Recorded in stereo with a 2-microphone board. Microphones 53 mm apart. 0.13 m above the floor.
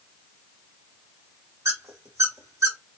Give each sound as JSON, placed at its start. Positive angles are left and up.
{"t": 1.6, "sound": "a squeak", "side_deg": -70, "distance_m": 1.7}